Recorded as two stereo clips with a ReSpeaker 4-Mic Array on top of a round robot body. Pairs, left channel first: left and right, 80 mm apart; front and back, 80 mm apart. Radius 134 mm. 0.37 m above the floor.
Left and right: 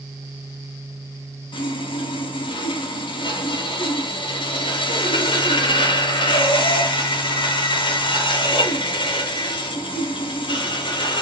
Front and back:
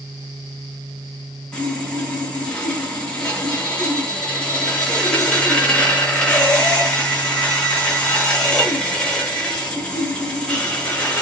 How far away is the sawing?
About 0.8 m.